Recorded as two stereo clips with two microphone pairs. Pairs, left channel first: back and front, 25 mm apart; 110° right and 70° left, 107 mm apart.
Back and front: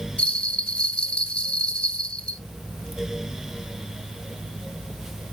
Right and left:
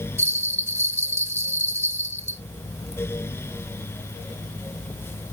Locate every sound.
0.2 s a bell: 140° left, 1.0 m